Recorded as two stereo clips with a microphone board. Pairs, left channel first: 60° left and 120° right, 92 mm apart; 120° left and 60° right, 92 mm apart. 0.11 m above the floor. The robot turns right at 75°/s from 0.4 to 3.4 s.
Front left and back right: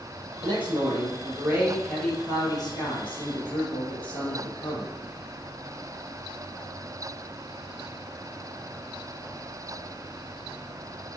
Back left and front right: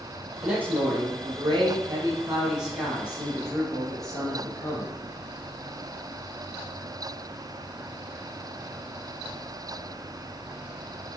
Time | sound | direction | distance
0.4 | a man speaking | 140° right | 3 m